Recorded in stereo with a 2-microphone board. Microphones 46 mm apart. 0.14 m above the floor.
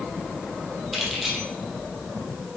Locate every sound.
0.9 s keys jangling: 5° right (ahead or behind), 2.5 m